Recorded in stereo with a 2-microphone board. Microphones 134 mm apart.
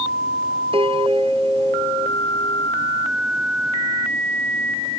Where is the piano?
45° right (ahead or behind).